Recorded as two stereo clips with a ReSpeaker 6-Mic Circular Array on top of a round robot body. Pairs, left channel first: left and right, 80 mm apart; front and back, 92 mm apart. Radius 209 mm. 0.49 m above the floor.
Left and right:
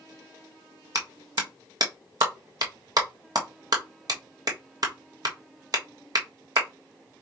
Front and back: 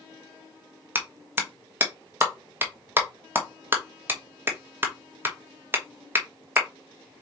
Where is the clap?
115° right, 1.2 m.